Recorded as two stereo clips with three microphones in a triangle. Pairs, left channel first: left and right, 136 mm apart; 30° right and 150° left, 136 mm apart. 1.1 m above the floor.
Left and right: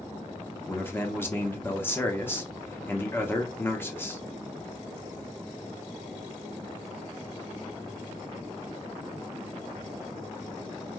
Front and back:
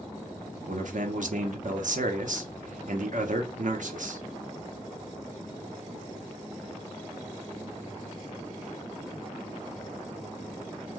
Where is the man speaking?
160° left, 0.6 m.